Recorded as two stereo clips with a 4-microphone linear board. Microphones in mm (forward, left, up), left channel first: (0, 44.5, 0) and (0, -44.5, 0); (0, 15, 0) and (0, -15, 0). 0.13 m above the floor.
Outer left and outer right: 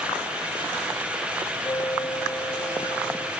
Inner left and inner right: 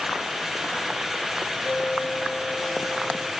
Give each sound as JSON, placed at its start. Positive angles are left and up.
{"t": 1.6, "sound": "a bell", "side_deg": 30, "distance_m": 4.0}